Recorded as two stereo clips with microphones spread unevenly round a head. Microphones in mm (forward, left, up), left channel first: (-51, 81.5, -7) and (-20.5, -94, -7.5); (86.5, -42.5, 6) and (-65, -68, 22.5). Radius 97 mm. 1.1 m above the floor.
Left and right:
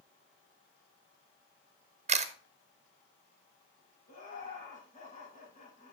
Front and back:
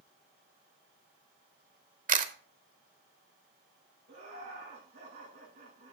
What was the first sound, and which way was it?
A camera shutter, 135° right.